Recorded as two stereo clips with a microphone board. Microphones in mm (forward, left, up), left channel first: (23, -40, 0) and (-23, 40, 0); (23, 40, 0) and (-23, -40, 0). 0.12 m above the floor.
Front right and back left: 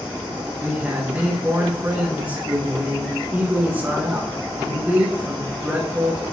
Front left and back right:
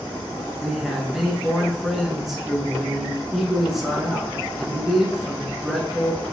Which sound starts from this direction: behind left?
A man speaking, at 0.6 s.